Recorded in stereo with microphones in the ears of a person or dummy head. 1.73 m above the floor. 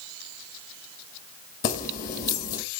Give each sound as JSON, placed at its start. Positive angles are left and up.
{"t": 1.6, "sound": "keys jangling", "side_deg": 45, "distance_m": 1.7}